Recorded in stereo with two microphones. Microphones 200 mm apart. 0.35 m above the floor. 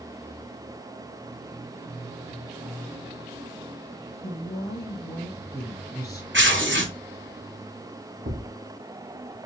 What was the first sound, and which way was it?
A woman speaking, 20° left (ahead or behind).